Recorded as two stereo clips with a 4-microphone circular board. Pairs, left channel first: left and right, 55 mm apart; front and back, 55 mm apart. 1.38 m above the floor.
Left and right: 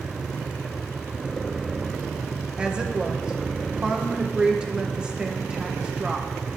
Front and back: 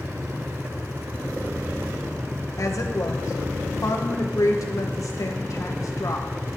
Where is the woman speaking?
20° right, 1.3 m.